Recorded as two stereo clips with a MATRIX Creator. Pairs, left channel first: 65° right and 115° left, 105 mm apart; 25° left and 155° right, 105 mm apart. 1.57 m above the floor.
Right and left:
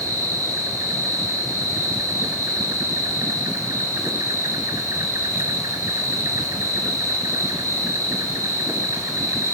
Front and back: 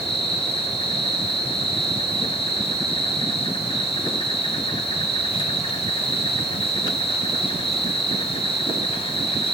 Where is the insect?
50° left, 2.5 m.